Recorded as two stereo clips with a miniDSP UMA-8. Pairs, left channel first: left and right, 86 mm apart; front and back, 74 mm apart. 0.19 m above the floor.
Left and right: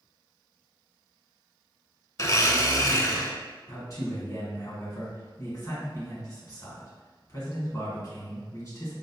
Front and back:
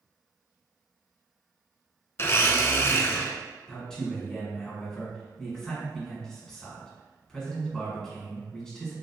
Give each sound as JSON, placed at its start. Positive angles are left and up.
{"t": 2.2, "sound": "a blender", "azimuth_deg": 45, "distance_m": 0.6}
{"t": 3.7, "sound": "a man speaking", "azimuth_deg": 75, "distance_m": 1.9}